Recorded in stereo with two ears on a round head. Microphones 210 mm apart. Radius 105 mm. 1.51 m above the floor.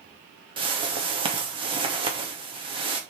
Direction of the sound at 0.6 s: 20° right (ahead or behind).